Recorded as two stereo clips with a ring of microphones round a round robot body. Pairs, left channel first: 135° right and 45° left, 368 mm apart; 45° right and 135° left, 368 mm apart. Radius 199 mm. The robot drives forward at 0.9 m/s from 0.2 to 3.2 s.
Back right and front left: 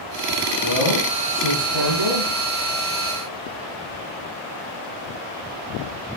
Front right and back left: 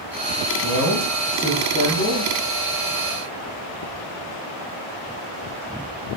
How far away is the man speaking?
About 9.5 m.